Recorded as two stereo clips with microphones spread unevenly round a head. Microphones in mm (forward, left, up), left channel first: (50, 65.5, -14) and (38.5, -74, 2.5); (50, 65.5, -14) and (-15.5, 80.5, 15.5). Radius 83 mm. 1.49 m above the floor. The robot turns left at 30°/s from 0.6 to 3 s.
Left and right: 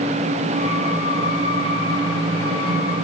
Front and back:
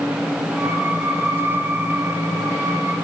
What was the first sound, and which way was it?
Only background noise.